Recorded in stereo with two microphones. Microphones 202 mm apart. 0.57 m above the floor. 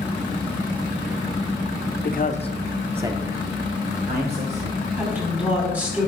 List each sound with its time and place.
2.0 s a man speaking: 50° left (ahead or behind), 0.9 m; by 4.8 s 55° right (ahead or behind), 2 m
5.0 s a woman speaking: 5° right (ahead or behind), 4.5 m